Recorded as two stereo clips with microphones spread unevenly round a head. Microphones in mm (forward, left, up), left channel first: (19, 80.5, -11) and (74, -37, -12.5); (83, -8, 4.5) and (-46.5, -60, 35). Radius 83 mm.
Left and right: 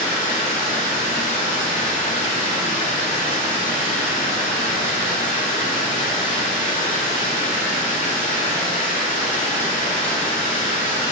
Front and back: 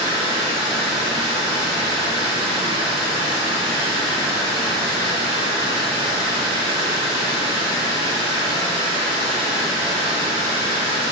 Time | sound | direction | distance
0.0 | running water | 150° left | 0.9 m